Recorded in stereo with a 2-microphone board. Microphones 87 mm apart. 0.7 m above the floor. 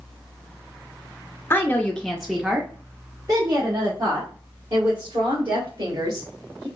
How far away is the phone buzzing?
No phone buzzing in this recording.